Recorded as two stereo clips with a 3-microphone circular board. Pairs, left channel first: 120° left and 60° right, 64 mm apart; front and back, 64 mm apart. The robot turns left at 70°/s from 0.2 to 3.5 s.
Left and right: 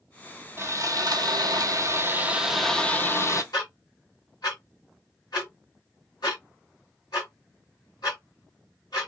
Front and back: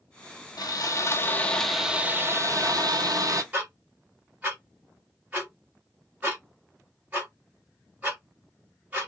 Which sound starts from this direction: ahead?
Sawing, at 0.6 s.